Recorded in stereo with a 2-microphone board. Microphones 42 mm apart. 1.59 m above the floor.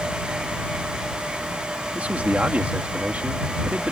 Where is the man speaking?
35° right (ahead or behind).